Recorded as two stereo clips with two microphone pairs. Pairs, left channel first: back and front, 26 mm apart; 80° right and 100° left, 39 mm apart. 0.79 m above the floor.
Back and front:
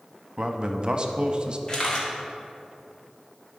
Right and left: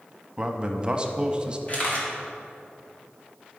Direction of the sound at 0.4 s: 45° left.